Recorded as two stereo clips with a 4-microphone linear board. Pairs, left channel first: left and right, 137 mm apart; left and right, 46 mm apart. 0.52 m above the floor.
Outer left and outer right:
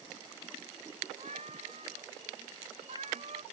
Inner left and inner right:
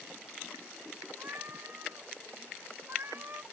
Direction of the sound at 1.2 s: 55° right (ahead or behind).